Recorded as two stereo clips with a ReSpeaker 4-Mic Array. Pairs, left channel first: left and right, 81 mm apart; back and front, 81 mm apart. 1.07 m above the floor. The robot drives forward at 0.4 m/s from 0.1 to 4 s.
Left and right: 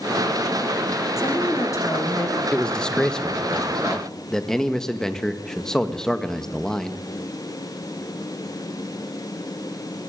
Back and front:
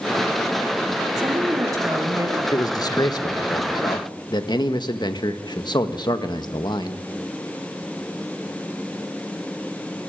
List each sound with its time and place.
1.2 s a woman speaking: 40° left, 3.5 m; by 2.4 s 45° left, 3 m
2.5 s a man speaking: 165° left, 1.1 m; by 7.0 s 170° left, 1.6 m